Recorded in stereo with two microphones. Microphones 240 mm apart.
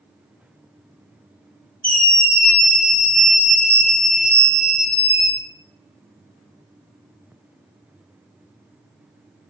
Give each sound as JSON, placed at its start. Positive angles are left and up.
{"t": 1.8, "sound": "a scream", "side_deg": 35, "distance_m": 0.7}